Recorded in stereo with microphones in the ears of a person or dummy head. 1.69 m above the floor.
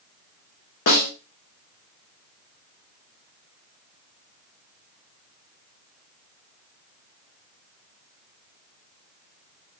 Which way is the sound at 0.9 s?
55° left (ahead or behind).